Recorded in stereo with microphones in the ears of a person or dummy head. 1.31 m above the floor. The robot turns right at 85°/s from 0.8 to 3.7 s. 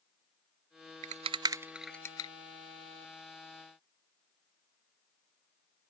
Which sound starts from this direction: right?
A rattle, at 1.0 s.